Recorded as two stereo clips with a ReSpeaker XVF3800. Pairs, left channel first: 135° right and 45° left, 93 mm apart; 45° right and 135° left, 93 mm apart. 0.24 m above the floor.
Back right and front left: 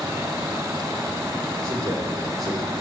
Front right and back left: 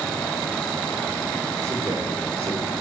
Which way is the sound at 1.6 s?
90° left.